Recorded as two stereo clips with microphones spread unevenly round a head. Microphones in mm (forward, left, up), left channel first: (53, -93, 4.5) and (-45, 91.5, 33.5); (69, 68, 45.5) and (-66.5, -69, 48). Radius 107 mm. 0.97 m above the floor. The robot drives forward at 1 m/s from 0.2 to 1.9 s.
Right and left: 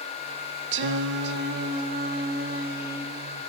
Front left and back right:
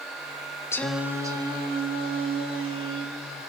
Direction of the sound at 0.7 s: 115° left.